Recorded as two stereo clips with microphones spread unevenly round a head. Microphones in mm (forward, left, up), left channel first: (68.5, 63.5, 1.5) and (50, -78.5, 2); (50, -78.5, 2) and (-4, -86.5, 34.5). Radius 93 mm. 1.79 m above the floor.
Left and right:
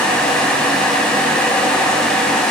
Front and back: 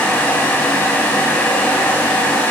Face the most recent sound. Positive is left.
No sound to turn to.